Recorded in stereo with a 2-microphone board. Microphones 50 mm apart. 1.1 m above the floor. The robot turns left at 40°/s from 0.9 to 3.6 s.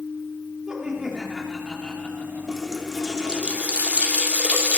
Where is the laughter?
160° right, 2 m; by 2.7 s 130° left, 2 m.